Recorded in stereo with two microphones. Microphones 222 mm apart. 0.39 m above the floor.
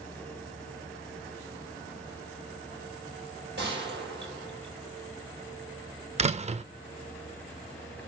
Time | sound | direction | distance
3.6 | a gunshot | 55° right (ahead or behind) | 4.5 m
6.2 | a door slam | 30° right (ahead or behind) | 0.6 m